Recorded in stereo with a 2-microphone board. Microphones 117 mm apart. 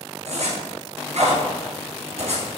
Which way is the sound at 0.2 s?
65° right (ahead or behind).